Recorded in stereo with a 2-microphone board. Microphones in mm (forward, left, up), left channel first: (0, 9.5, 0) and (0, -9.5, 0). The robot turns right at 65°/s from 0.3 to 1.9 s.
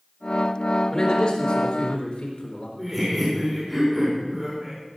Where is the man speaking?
40° left, 4 m; by 2.7 s 105° left, 4 m.